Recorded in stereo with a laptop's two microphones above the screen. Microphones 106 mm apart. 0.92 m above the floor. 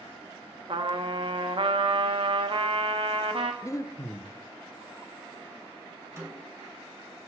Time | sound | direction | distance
0.7 | a trumpet | 60° right (ahead or behind) | 1.0 m
3.6 | breathing | 30° left (ahead or behind) | 0.6 m
6.2 | a snare drum | 25° right (ahead or behind) | 6 m